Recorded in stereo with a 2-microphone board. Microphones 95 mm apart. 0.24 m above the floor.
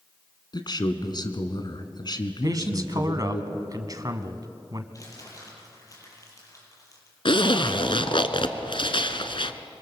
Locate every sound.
0.5 s a man speaking: 50° left (ahead or behind), 1.9 m
2.4 s a man speaking: 45° right (ahead or behind), 1.6 m
4.9 s crumpling: 35° left (ahead or behind), 7 m
7.2 s a zipper: 70° left (ahead or behind), 1.2 m